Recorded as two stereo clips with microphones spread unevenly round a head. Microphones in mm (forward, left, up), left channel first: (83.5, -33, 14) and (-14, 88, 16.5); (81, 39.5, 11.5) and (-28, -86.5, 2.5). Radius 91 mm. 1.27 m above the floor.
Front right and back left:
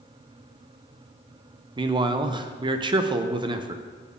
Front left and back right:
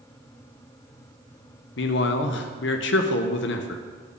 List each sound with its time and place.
1.8 s a man speaking: 70° left, 0.6 m